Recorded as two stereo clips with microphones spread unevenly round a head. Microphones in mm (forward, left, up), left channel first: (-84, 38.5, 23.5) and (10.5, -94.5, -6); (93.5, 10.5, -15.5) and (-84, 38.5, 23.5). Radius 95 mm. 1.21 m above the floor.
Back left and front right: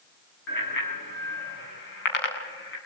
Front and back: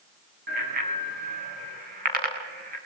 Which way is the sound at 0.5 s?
135° left.